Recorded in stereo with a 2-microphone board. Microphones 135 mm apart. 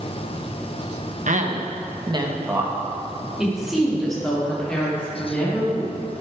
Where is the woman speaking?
70° right (ahead or behind), 1.4 m; by 6.1 s 10° left (ahead or behind), 5 m.